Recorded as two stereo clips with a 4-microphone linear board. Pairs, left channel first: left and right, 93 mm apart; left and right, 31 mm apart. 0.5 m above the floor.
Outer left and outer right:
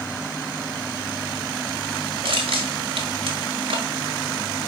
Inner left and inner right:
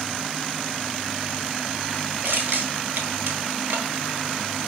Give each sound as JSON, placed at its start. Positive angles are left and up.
{"t": 2.2, "sound": "crushing", "side_deg": -75, "distance_m": 1.5}